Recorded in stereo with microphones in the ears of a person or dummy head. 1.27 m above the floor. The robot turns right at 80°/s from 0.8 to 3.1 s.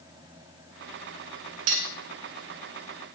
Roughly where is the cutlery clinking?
Right.